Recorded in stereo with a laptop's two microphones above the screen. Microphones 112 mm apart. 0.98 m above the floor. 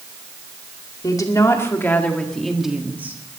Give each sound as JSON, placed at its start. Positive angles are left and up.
{"t": 1.0, "sound": "a woman speaking", "side_deg": 35, "distance_m": 2.0}